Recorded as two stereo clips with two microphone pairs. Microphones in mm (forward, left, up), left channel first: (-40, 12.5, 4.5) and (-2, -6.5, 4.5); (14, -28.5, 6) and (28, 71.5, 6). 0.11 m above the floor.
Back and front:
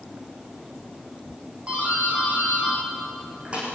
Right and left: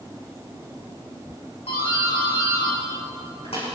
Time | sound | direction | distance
1.7 | a doorbell | 85° right | 8.5 m